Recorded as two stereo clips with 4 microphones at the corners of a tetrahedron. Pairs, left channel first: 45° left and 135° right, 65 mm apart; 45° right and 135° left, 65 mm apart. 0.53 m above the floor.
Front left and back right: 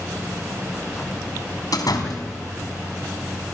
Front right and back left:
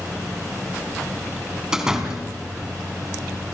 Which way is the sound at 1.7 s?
55° left.